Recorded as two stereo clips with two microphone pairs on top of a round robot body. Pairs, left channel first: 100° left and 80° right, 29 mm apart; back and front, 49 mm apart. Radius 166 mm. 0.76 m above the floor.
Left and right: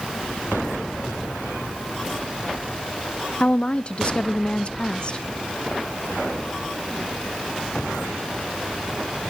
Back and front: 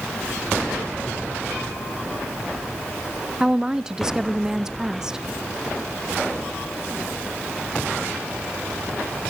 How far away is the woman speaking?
About 0.6 m.